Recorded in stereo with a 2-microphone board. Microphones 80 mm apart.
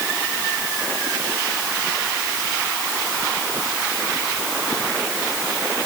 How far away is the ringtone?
No ringtone in this recording.